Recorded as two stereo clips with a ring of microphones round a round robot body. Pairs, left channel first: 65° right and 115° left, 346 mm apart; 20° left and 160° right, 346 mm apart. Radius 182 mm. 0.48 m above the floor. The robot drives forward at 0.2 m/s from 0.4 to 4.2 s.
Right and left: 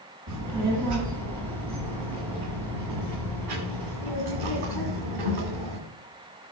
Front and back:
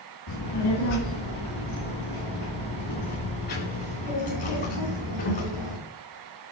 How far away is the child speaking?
About 2.5 m.